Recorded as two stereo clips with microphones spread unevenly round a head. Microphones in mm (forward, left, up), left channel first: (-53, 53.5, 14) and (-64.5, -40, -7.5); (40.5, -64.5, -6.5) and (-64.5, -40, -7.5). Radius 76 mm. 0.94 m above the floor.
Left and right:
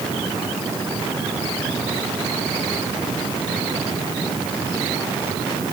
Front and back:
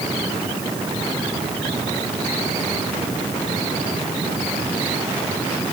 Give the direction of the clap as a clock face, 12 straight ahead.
No clap in this recording.